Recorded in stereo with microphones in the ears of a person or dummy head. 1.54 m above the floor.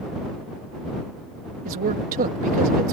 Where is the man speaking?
45° right (ahead or behind).